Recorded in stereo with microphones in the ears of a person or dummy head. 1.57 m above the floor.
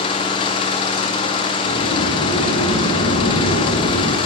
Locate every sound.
0.0 s an engine running: 30° left (ahead or behind), 1.7 m
1.6 s a sliding door: 85° left, 4 m